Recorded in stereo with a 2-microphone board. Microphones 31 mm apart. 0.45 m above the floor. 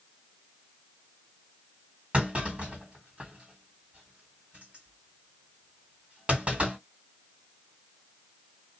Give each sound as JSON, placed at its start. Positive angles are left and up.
{"t": 2.1, "sound": "a clunk", "side_deg": -45, "distance_m": 1.9}